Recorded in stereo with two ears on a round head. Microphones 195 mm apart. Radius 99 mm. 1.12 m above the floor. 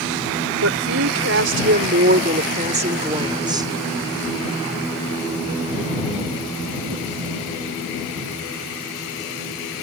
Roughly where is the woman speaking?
Right.